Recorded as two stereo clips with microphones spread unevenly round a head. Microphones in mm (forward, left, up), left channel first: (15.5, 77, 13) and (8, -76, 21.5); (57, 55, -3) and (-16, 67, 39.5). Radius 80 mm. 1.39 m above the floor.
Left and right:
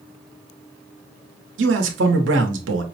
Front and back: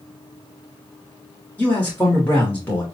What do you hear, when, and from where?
1.6 s a man speaking: 95° right, 0.9 m